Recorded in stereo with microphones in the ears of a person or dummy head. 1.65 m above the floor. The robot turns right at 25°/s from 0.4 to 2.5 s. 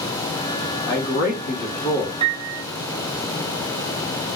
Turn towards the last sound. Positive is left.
turn(degrees=-25)  # may be behind; listen again after turning